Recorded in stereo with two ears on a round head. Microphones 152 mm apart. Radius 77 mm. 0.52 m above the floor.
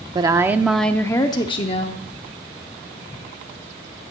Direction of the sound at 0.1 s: 25° right (ahead or behind).